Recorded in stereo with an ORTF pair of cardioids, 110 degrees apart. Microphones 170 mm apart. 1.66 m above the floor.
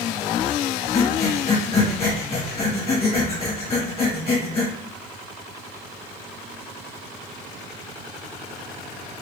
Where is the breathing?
35° left, 1.8 m.